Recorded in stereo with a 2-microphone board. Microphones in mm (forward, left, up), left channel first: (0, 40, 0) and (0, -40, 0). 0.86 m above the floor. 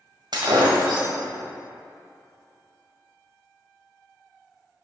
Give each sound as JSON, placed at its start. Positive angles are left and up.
{"t": 0.3, "sound": "breaking glass", "side_deg": -80, "distance_m": 1.7}